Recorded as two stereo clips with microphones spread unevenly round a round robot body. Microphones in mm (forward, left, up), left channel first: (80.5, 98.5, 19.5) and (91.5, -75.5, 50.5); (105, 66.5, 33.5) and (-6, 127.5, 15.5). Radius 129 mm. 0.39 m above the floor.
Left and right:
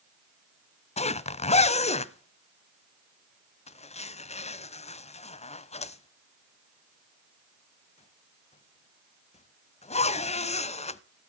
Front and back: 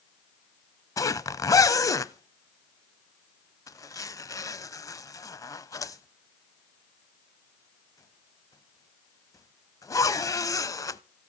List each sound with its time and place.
1.0 s a zipper: 40° left, 0.8 m